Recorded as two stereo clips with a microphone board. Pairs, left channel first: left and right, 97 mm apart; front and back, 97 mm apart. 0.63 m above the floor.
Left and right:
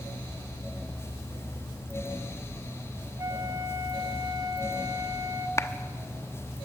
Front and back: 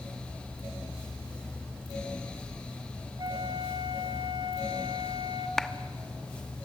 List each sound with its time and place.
3.2 s a flute: 140° right, 1.2 m
5.6 s a clap: 85° left, 0.9 m